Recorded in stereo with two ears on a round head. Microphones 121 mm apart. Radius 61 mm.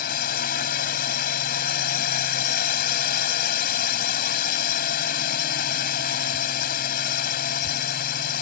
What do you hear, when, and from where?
0.0 s a drone: 70° left (ahead or behind)